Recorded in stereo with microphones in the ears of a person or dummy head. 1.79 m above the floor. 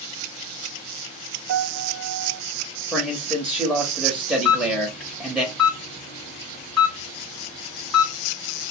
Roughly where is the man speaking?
Centre.